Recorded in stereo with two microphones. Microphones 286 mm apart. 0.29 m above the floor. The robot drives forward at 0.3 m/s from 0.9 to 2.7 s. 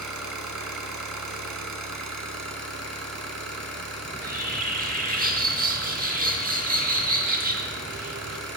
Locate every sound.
0.0 s an engine running: 80° right, 0.8 m; by 8.6 s 55° right (ahead or behind), 1.0 m
4.0 s a bird: 30° right (ahead or behind), 0.7 m